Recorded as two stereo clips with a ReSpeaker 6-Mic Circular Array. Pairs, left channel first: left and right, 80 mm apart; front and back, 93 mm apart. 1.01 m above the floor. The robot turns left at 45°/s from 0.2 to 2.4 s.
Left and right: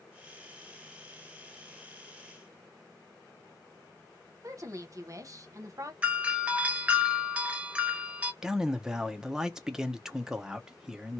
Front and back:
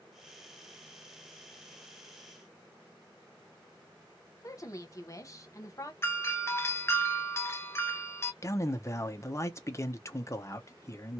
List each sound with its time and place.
4.4 s a woman speaking: 50° right, 0.9 m
6.0 s a doorbell: 30° right, 0.6 m
8.4 s a man speaking: 15° right, 0.6 m